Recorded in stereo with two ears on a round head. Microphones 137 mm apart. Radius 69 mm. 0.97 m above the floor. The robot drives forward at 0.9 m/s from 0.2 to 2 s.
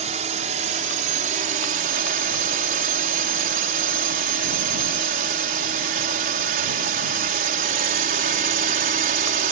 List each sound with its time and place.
0.0 s a drone: 45° right (ahead or behind); by 9.5 s 55° right (ahead or behind)